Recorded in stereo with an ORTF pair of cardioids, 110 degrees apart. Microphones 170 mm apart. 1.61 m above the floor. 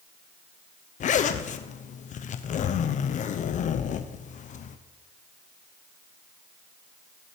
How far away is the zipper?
About 0.8 m.